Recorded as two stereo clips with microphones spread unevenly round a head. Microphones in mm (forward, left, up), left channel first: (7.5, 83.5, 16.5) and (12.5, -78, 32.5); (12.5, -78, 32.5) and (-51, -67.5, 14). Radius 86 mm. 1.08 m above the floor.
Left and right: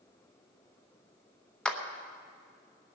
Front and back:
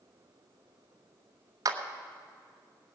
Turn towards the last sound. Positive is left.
turn(degrees=175)